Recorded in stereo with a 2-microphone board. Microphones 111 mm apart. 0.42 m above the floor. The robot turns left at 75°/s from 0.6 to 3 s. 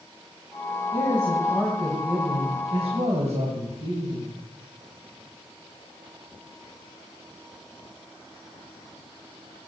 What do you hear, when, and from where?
0.9 s a man speaking: 65° left, 3 m; by 4.4 s 90° right, 3 m